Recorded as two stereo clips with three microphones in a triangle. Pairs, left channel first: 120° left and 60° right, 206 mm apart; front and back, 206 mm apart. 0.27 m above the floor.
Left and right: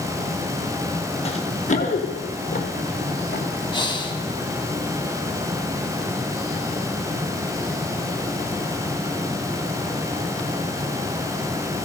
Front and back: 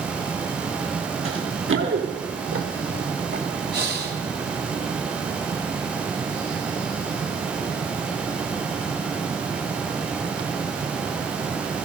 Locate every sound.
1.2 s running footsteps: straight behind, 3 m; by 3.4 s 165° left, 5 m
3.7 s breathing: straight behind, 2 m